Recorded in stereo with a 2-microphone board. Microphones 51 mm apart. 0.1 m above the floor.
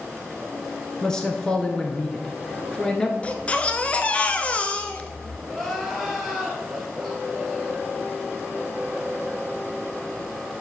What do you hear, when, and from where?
1.0 s a man speaking: 15° left (ahead or behind), 1.1 m
3.2 s a baby crying: 25° left (ahead or behind), 0.6 m
5.5 s crying: centre (ahead or behind), 2 m